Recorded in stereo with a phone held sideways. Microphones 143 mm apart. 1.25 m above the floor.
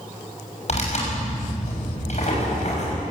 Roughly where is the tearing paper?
Left.